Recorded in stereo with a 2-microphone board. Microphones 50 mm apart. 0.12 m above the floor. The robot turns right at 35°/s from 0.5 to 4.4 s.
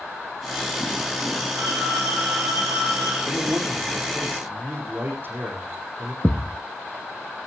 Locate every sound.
1.6 s a phone ringing: 115° right, 6 m; by 3.2 s 60° right, 6 m
3.3 s a man speaking: 85° right, 7 m; by 6.1 s 45° right, 7 m
6.2 s a thud: 30° left (ahead or behind), 0.8 m